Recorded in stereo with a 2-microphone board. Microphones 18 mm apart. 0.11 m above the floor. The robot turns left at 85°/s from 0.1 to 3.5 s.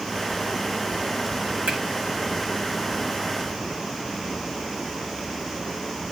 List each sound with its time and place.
1.7 s a finger snap: 70° right (ahead or behind), 8.5 m; by 1.8 s 75° right (ahead or behind), 8.5 m